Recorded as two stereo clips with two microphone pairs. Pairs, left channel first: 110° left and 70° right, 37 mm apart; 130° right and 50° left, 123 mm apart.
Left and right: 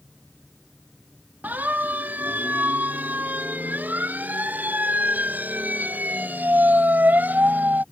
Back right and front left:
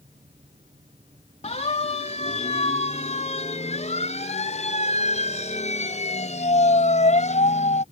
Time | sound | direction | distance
1.4 | a siren | 105° right | ?